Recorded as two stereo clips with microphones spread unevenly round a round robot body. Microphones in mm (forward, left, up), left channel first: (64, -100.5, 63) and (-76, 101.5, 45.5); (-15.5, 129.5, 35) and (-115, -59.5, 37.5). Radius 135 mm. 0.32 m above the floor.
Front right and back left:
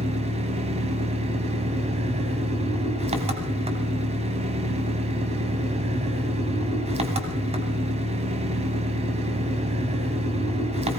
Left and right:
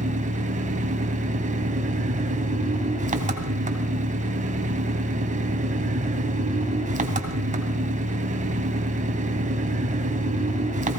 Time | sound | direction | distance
0.0 | an engine running | 170° right | 1.8 m